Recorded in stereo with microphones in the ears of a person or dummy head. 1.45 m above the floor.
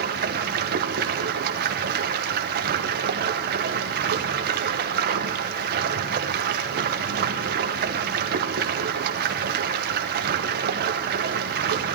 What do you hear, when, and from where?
0.0 s running water: 55° right (ahead or behind), 0.9 m